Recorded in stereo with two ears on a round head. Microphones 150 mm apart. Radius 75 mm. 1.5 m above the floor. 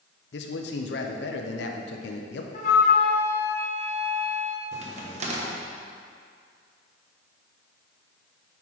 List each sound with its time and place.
0.3 s a man speaking: 70° left (ahead or behind), 0.6 m
2.5 s a flute: 45° left (ahead or behind), 1.1 m
4.7 s a crack: 40° right (ahead or behind), 1.0 m